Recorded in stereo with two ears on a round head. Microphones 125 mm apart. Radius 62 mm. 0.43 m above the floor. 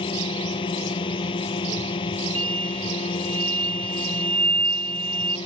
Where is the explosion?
40° right (ahead or behind).